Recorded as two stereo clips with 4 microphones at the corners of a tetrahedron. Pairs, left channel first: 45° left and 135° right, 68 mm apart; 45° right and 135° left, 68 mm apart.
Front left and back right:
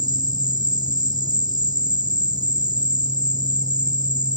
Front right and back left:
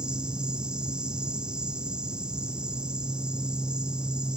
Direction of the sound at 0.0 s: 150° right.